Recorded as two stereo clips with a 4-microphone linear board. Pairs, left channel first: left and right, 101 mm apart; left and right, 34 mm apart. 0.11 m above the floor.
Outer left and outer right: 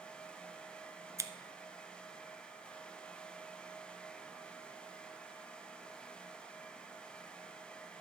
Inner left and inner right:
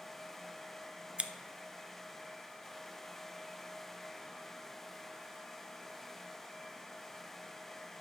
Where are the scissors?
30° right (ahead or behind), 0.6 m.